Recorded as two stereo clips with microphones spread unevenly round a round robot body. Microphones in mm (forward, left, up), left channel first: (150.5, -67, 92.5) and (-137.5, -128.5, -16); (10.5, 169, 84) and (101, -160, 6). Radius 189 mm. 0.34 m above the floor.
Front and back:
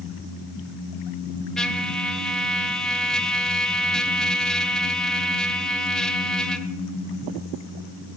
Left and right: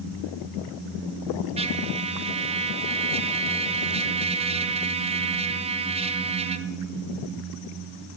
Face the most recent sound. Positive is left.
turn(degrees=-105)